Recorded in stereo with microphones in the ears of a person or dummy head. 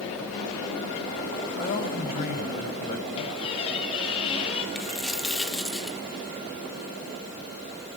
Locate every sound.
1.6 s a man speaking: 45° left (ahead or behind), 7 m
3.2 s a squeak: 30° left (ahead or behind), 4.5 m
4.8 s a dropped coin: 5° right (ahead or behind), 1.0 m